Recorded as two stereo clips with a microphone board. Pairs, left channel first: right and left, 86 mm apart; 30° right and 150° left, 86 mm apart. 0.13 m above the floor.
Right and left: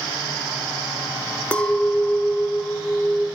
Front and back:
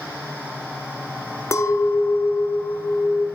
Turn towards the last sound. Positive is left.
turn(degrees=-25)